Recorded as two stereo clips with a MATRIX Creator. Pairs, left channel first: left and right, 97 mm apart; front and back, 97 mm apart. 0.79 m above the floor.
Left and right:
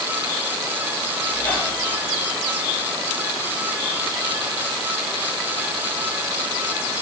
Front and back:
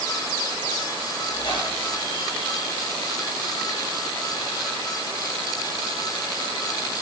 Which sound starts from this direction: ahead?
A squeak, at 1.3 s.